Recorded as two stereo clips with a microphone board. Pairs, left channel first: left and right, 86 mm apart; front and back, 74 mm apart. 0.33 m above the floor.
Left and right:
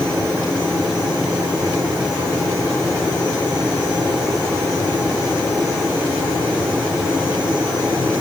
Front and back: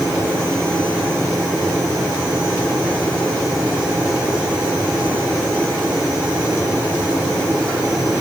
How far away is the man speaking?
No man speaking in this recording.